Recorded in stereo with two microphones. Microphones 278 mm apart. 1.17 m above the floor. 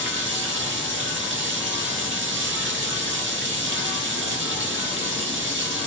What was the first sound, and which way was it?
Running water, 40° right (ahead or behind).